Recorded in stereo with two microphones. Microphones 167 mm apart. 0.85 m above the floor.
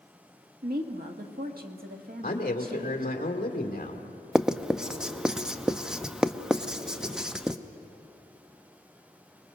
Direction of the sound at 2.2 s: 55° left (ahead or behind).